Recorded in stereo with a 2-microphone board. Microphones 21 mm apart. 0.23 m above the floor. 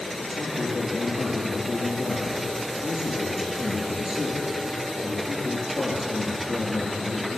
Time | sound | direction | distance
0.3 | a man speaking | 25° right (ahead or behind) | 4 m